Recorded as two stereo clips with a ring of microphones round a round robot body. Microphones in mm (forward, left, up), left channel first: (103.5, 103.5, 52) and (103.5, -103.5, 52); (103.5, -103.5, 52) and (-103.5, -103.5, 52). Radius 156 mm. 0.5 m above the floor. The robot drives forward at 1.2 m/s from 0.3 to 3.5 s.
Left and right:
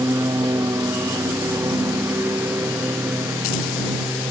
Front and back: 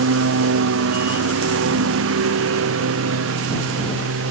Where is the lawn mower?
170° right; by 4.3 s 175° right.